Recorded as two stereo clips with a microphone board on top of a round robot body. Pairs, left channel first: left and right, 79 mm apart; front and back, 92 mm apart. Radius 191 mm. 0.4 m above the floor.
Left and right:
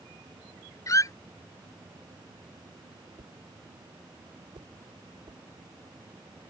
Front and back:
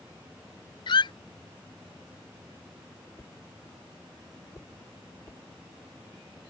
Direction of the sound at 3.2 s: 65° right.